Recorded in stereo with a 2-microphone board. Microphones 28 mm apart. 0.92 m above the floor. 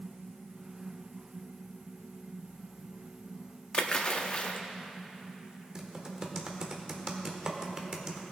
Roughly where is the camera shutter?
No camera shutter in this recording.